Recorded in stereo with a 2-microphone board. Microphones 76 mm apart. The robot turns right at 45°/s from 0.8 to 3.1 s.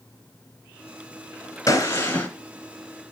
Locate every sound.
1.7 s a gunshot: 45° left (ahead or behind), 1.7 m; by 2.3 s 20° left (ahead or behind), 1.7 m